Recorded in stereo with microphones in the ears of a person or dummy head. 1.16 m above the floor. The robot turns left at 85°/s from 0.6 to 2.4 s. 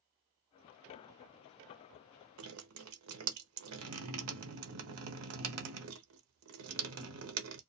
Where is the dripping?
85° right, 0.6 m.